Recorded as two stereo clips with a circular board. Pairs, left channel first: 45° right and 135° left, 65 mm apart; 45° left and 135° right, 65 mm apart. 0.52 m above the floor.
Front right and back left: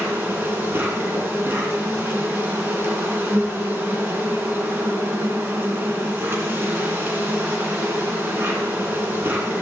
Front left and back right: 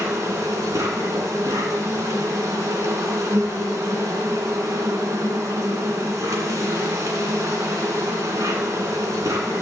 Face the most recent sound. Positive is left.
turn(degrees=-170)